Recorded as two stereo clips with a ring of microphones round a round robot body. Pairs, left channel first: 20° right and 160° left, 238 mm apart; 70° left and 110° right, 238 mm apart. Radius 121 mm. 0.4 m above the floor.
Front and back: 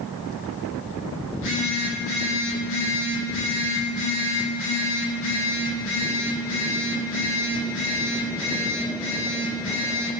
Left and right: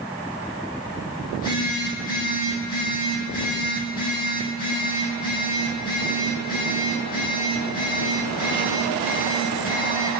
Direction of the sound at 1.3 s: 15° left.